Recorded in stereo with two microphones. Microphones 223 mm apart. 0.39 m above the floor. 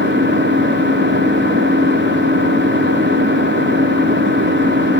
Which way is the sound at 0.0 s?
50° right (ahead or behind).